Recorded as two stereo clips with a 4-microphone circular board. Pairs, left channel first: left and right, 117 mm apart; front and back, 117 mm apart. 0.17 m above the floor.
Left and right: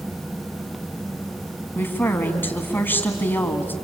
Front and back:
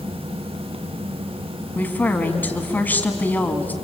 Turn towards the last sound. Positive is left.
turn(degrees=50)